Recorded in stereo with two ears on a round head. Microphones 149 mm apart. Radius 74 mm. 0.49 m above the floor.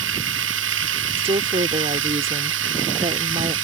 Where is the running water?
90° right.